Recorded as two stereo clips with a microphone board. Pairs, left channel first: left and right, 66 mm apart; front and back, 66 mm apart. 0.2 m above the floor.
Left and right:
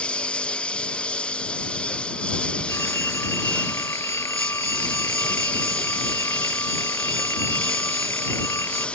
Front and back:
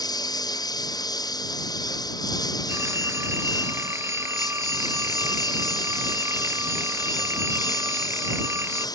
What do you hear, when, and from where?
0.0 s a lawn mower: 15° left
2.7 s a phone ringing: 130° left